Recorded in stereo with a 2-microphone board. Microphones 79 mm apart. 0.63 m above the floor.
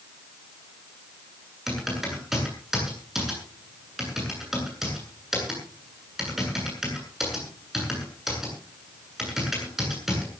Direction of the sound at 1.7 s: 5° right (ahead or behind).